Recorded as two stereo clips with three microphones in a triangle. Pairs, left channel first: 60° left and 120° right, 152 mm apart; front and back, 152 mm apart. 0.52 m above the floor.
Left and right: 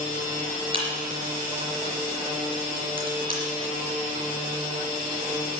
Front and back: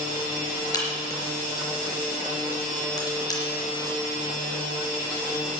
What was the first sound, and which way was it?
A crack, 65° right.